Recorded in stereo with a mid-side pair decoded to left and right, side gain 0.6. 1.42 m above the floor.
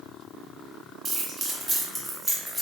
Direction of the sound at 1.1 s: 40° right.